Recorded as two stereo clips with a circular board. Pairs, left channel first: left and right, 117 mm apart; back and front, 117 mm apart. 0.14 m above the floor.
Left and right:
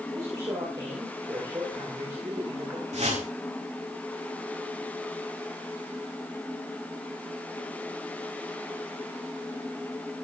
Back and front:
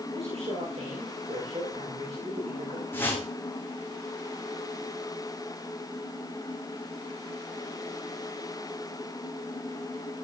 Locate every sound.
0.1 s a man speaking: 35° right, 9.5 m
2.9 s a whoosh: 110° right, 6 m